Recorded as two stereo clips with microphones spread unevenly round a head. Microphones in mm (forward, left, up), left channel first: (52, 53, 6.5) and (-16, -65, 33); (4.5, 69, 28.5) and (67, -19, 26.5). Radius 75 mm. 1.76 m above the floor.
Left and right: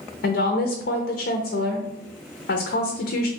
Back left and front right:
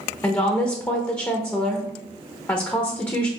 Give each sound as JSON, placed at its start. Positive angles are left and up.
{"t": 0.2, "sound": "a woman speaking", "azimuth_deg": 55, "distance_m": 0.6}